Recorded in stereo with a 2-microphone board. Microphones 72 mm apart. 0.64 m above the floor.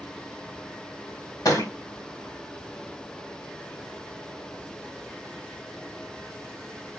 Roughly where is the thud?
Left.